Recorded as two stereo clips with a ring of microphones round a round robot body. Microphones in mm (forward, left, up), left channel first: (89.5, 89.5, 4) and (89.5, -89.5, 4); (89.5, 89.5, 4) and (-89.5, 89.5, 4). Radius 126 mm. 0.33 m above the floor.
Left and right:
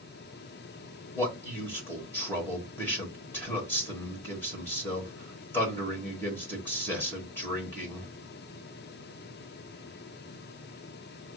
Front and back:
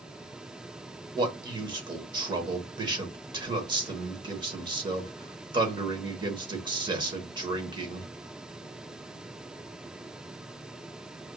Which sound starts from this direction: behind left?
A man speaking, at 1.1 s.